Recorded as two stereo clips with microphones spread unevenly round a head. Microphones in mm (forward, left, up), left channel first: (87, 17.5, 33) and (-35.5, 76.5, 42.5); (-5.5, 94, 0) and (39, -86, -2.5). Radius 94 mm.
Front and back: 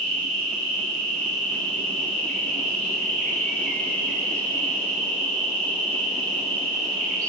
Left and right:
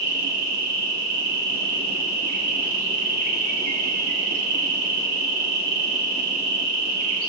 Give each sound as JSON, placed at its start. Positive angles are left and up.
{"t": 0.0, "sound": "an insect", "azimuth_deg": -100, "distance_m": 0.9}